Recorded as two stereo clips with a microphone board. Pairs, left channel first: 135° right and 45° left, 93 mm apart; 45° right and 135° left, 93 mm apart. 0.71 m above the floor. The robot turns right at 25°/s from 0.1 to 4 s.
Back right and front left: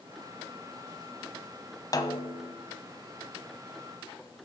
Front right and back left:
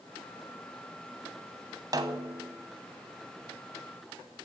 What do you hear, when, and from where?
1.9 s a snare drum: straight behind, 0.9 m; by 2.5 s 165° right, 0.9 m